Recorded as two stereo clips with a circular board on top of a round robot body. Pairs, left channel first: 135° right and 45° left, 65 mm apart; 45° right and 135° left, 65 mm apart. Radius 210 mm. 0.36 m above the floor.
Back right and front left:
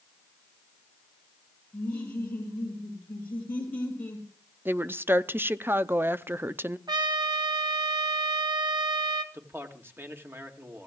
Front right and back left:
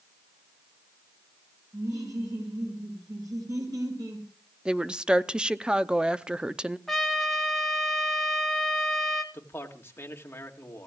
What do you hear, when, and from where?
1.7 s laughter: 160° left, 6 m
4.7 s a woman speaking: 70° left, 0.9 m
6.9 s a trumpet: 40° left, 1.8 m
9.3 s a man speaking: straight ahead, 2 m